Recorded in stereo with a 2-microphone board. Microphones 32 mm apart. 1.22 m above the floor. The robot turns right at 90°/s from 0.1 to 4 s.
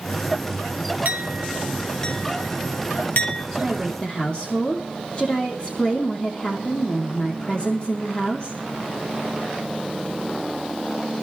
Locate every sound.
1.1 s a clink: 65° right (ahead or behind), 2.5 m; by 3.4 s 35° left (ahead or behind), 2.5 m
3.5 s a woman speaking: 10° right, 3 m; by 8.6 s 35° left, 3 m